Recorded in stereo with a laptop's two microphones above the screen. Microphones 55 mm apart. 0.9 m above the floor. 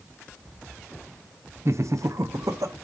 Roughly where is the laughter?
Right.